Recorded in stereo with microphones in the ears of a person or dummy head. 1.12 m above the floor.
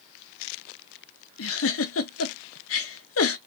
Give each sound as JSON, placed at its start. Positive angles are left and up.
{"t": 1.4, "sound": "a giggle", "side_deg": 70, "distance_m": 0.8}